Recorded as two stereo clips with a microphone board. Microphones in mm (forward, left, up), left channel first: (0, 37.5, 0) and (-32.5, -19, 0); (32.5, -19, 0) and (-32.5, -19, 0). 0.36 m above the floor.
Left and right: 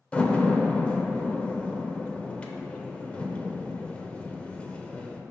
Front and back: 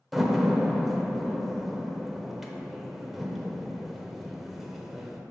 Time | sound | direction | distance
0.1 | a door slam | 95° left | 0.6 m